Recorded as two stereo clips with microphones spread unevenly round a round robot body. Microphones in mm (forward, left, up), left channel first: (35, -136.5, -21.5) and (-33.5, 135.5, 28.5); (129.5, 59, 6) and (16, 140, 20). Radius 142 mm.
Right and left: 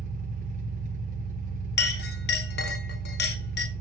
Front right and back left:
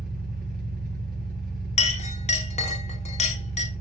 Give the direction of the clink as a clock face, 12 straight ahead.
1 o'clock.